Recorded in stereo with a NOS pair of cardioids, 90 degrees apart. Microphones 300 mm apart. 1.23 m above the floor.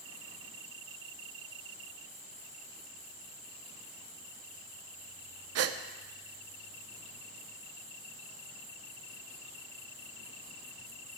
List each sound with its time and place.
5.5 s a gasp: 60° right, 0.7 m